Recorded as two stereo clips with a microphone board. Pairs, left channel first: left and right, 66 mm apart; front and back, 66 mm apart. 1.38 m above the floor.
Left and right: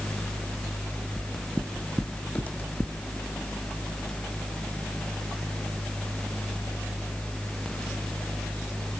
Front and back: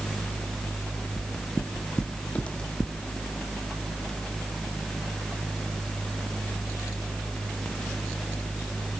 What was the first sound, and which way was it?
Footsteps, 10° right.